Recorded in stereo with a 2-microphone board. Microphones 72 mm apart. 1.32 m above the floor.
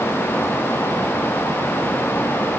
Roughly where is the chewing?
No chewing in this recording.